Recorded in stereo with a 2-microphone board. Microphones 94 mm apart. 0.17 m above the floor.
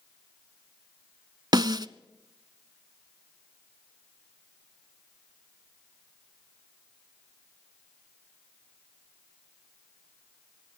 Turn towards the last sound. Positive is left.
turn(degrees=-50)  # may be behind; listen again after turning